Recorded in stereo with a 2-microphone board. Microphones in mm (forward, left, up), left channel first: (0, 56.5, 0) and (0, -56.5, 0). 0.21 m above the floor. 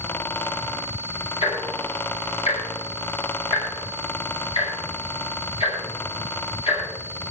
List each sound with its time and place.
1.4 s ticking: 60° left (ahead or behind), 6.5 m